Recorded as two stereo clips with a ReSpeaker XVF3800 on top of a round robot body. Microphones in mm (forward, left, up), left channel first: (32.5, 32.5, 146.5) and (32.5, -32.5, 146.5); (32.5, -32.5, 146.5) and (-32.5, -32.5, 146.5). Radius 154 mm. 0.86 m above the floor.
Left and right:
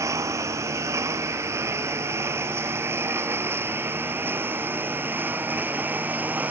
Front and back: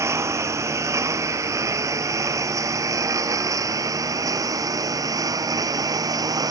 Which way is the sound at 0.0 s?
135° right.